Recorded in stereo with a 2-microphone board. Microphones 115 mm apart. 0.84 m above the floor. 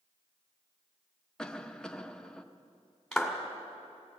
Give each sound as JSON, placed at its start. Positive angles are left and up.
{"t": 1.4, "sound": "a cough", "side_deg": 5, "distance_m": 0.7}
{"t": 3.1, "sound": "a clap", "side_deg": 0, "distance_m": 1.8}